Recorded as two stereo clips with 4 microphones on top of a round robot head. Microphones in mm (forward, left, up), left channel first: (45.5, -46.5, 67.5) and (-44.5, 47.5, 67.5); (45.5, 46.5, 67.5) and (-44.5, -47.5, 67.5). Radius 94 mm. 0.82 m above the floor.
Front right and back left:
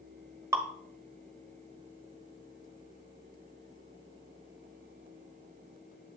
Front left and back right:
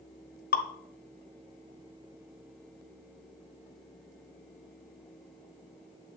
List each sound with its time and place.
0.5 s dripping: 60° left, 1.3 m